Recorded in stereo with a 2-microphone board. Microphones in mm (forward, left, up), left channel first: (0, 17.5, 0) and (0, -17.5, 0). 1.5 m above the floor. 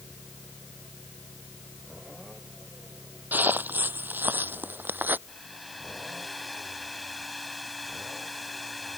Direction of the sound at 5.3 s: 5° right (ahead or behind).